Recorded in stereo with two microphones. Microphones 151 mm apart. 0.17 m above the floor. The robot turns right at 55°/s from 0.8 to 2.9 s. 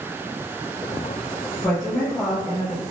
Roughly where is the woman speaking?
Centre.